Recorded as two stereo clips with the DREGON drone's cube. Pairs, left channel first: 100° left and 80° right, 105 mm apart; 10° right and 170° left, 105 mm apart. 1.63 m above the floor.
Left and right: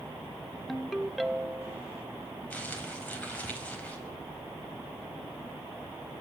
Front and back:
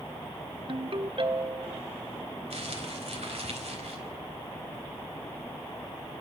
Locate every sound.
0.7 s a ringtone: 170° right, 1.0 m
2.5 s crumpling: 175° left, 4.5 m